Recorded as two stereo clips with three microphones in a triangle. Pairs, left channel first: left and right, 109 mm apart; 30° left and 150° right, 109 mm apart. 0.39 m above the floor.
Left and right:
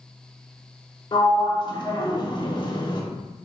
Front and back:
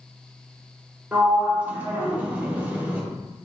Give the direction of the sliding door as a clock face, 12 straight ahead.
7 o'clock.